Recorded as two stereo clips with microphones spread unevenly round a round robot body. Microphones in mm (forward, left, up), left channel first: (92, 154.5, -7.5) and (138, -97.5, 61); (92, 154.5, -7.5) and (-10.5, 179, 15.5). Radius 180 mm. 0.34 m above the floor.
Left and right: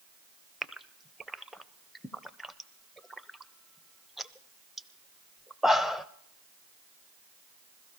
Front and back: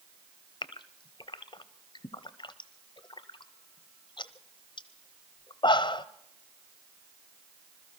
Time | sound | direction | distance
0.6 | a gasp | 15° left | 0.7 m